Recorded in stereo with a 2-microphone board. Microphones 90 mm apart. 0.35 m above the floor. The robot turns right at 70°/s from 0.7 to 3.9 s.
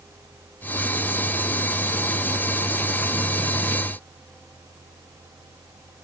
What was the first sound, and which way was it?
Only background noise.